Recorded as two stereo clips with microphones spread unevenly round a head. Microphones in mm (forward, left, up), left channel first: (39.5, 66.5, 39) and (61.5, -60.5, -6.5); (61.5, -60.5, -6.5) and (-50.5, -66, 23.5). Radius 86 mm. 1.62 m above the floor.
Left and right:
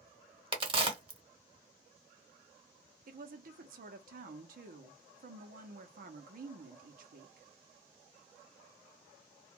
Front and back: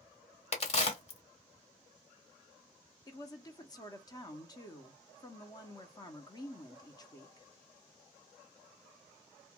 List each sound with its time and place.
0.5 s a crack: 30° right, 1.2 m
3.1 s a woman speaking: 60° right, 0.6 m